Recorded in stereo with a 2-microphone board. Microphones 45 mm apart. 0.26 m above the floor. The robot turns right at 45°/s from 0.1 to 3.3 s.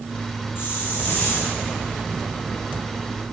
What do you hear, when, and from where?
0.6 s a hiss: 125° left, 5.5 m; by 1.6 s 170° left, 5.5 m